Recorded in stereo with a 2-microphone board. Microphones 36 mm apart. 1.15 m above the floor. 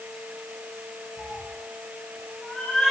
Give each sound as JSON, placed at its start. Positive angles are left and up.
{"t": 1.2, "sound": "a cat meowing", "side_deg": 60, "distance_m": 2.5}